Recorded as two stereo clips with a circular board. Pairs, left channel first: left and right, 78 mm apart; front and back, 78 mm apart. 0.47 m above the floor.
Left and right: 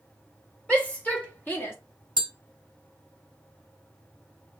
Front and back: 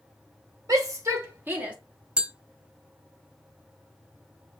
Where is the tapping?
105° right, 0.6 m.